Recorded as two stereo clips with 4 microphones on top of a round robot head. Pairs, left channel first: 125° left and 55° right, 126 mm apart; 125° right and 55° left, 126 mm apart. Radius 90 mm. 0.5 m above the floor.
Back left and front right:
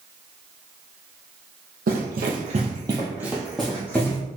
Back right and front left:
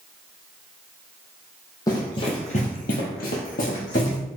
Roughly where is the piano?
I don't hear a piano.